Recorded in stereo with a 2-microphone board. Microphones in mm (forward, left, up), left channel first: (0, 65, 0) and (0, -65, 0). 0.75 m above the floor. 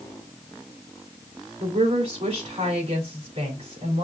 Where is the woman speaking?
50° right (ahead or behind), 3.5 m.